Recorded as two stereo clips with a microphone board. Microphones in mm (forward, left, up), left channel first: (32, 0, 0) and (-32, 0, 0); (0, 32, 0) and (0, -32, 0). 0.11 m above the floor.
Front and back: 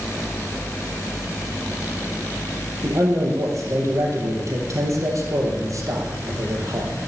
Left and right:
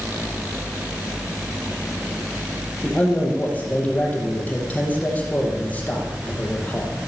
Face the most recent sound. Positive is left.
turn(degrees=155)